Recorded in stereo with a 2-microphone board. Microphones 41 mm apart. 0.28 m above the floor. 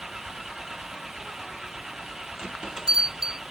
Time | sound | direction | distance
0.0 | an engine running | 10° right (ahead or behind) | ?
2.4 | a bell | 15° right (ahead or behind) | ?